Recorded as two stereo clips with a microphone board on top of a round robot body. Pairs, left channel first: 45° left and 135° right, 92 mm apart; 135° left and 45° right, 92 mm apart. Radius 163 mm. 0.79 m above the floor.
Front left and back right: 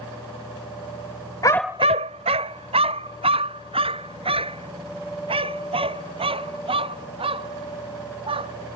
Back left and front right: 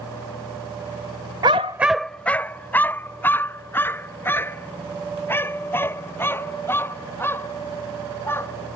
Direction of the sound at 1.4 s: 5° right.